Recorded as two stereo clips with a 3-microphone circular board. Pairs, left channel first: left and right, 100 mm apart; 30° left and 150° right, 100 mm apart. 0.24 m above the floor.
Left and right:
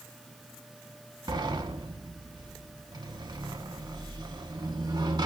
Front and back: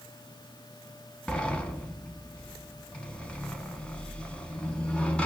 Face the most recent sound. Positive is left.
turn(degrees=-50)